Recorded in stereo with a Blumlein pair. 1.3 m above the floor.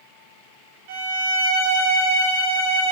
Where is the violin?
45° right, 1.3 m.